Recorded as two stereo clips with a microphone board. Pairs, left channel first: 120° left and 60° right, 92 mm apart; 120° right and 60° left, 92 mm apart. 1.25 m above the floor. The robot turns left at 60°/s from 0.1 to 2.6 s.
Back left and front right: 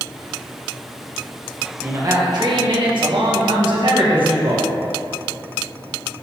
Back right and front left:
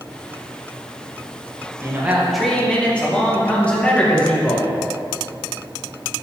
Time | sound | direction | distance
1.8 | a man speaking | 5° left | 1.7 m